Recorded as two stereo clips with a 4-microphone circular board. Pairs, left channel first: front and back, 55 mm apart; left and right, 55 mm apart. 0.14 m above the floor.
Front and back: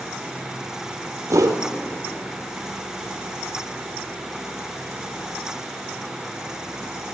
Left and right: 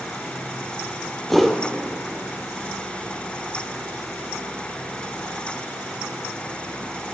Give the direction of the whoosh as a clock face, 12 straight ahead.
6 o'clock.